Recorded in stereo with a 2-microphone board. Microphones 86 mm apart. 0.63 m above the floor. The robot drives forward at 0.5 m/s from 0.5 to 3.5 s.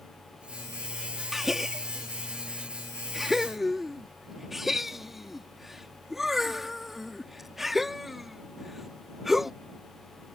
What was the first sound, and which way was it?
A gasp, 5° right (ahead or behind).